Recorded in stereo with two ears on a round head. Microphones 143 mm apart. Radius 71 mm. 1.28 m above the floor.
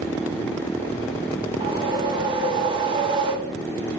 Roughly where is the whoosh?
Right.